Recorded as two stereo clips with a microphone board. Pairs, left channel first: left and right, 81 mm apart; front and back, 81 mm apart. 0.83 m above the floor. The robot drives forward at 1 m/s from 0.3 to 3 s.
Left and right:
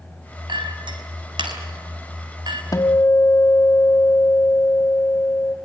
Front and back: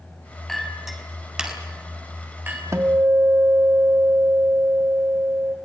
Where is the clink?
90° right, 4.5 m; by 2.6 s 115° right, 5 m.